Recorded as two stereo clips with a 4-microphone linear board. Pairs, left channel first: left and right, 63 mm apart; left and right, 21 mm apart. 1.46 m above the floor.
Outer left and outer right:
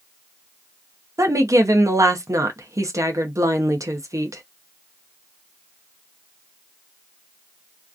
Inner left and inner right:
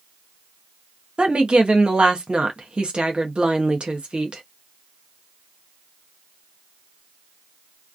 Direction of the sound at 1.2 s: 60° right (ahead or behind).